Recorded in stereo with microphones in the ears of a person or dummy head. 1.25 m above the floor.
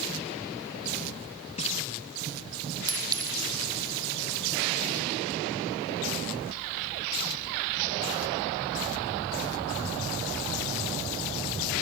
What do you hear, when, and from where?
1.6 s a splash: 35° left (ahead or behind), 1.2 m
2.9 s a clink: 20° right (ahead or behind), 1.3 m